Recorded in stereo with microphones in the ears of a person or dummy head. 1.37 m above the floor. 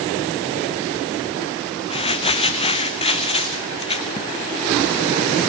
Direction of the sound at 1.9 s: 35° left (ahead or behind).